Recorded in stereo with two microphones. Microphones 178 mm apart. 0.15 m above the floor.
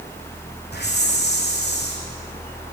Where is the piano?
No piano in this recording.